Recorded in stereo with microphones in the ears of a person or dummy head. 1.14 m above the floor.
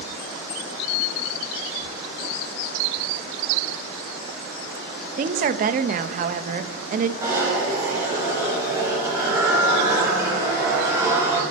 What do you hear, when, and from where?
5.2 s a woman speaking: 45° right (ahead or behind), 0.8 m
7.2 s a zipper: 15° right (ahead or behind), 7.5 m